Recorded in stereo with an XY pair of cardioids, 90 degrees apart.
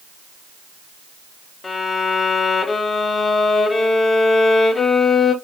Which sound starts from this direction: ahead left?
A violin, at 1.6 s.